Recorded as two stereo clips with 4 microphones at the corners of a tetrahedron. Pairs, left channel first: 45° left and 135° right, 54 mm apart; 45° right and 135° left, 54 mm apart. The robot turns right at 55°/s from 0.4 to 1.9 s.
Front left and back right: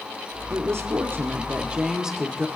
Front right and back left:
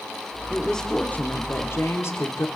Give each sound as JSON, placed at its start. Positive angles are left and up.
{"t": 0.5, "sound": "a woman speaking", "azimuth_deg": -135, "distance_m": 1.8}